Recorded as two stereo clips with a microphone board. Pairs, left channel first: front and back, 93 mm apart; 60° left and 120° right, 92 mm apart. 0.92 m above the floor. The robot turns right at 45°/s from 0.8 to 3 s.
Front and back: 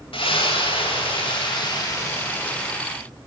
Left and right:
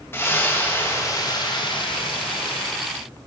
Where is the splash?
Straight ahead, 1.6 m; by 2.7 s 85° left, 1.6 m.